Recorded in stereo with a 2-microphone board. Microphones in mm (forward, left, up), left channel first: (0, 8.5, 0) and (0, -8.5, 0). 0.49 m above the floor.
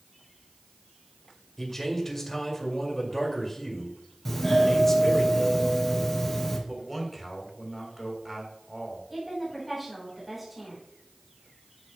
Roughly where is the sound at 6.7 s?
Centre.